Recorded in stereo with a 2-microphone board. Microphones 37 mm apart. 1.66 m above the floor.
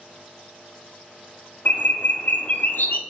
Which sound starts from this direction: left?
A bird, at 1.6 s.